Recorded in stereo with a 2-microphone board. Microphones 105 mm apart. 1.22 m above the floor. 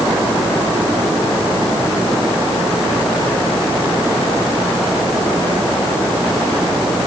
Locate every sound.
Only background noise.